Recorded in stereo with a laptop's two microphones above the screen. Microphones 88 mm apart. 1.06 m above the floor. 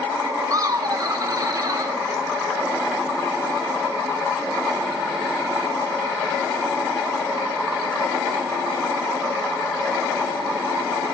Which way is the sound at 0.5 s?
40° right (ahead or behind).